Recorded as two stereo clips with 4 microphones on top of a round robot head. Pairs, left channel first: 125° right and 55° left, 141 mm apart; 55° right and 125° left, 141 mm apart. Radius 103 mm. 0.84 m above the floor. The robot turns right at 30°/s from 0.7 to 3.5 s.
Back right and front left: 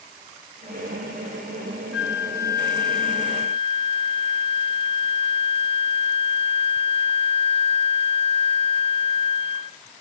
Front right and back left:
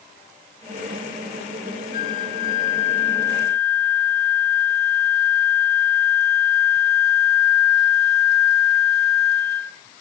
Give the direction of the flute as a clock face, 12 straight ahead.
1 o'clock.